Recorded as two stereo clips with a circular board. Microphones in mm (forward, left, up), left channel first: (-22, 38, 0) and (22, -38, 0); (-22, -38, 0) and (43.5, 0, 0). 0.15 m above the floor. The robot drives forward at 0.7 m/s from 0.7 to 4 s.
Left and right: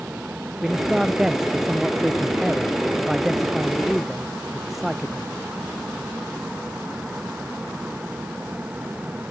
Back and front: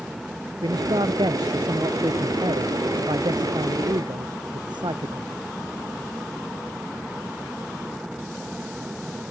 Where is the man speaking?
25° left; by 5.3 s 30° left.